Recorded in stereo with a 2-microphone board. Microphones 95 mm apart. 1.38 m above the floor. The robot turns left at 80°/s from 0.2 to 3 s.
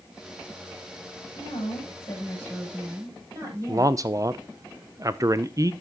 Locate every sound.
1.4 s a woman speaking: 95° left, 7 m; by 4.0 s 35° right, 7 m
3.7 s a man speaking: 35° right (ahead or behind), 0.5 m